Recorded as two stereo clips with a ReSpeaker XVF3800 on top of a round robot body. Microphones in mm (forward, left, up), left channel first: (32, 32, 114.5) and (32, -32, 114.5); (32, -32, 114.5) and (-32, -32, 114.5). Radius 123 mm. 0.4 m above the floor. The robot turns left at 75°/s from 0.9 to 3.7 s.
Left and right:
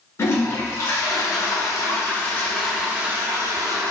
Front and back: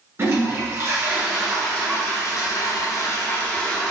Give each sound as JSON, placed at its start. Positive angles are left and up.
{"t": 0.2, "sound": "a toilet flushing", "azimuth_deg": 135, "distance_m": 1.3}